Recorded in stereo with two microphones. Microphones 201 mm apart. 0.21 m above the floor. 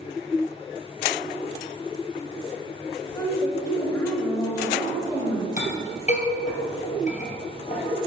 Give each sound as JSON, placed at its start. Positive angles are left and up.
{"t": 3.0, "sound": "a woman speaking", "side_deg": 15, "distance_m": 3.0}
{"t": 5.6, "sound": "a clink", "side_deg": 40, "distance_m": 3.0}